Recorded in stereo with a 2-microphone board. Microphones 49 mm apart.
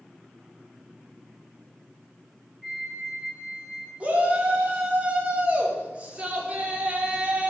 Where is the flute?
15° right (ahead or behind), 1.3 m.